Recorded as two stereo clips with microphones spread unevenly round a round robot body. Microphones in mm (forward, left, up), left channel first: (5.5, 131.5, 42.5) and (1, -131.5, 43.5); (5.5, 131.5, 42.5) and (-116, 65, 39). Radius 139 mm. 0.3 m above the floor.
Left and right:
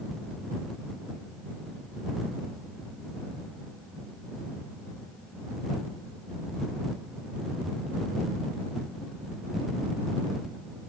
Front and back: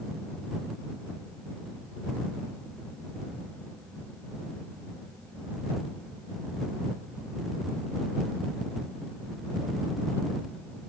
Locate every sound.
Only background noise.